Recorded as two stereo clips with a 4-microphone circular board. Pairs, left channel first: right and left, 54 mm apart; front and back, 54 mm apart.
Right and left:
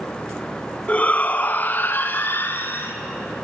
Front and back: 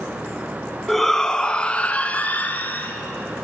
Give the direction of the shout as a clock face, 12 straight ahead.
3 o'clock.